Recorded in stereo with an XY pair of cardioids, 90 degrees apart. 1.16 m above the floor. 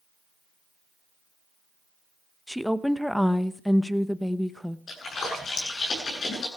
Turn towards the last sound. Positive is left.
turn(degrees=55)